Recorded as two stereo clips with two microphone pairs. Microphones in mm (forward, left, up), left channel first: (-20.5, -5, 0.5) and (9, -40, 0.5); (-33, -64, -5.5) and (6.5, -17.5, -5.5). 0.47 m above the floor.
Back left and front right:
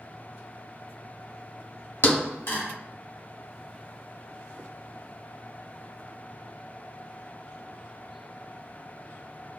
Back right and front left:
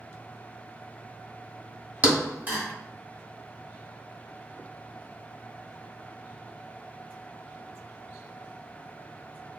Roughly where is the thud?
Behind left.